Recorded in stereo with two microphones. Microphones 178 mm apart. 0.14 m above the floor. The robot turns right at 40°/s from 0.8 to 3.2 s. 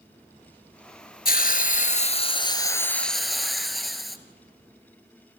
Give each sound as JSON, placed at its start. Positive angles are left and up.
{"t": 1.2, "sound": "a hiss", "azimuth_deg": 100, "distance_m": 1.2}